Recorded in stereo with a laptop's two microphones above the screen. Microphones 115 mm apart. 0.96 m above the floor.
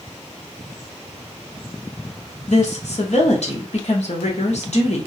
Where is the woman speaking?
65° left (ahead or behind), 0.7 m.